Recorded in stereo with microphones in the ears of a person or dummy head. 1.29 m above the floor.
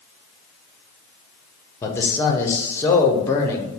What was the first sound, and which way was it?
A man speaking, 15° left (ahead or behind).